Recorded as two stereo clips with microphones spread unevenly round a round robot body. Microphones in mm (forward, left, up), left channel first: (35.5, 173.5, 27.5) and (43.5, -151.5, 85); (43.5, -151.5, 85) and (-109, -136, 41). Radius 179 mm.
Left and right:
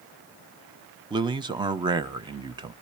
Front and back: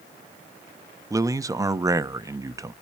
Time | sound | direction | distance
1.1 | a man speaking | 170° right | 0.9 m